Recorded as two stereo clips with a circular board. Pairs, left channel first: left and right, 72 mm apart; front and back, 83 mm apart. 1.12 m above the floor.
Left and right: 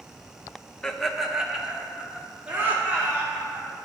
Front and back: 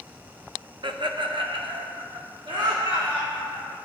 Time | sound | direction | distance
0.8 | laughter | 165° left | 0.6 m